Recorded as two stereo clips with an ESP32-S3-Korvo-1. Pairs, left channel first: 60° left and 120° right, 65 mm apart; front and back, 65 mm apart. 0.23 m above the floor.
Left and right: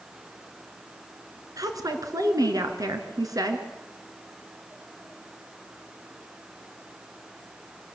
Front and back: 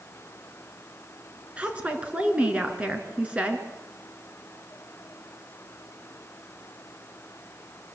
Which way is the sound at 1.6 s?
110° right.